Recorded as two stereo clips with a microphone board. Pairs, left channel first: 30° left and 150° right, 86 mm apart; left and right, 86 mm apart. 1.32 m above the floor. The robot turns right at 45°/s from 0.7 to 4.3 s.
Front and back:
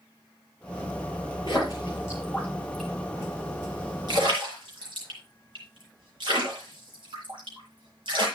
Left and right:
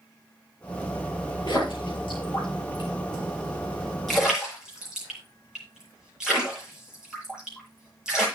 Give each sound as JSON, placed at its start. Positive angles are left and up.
{"t": 1.5, "sound": "a splash", "azimuth_deg": 60, "distance_m": 8.0}